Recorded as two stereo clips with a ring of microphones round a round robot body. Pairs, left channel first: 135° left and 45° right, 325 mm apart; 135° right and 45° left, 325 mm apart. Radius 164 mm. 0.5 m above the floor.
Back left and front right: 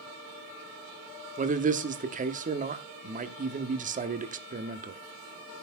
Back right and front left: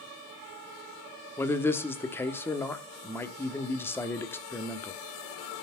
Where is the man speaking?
60° right, 1.2 m.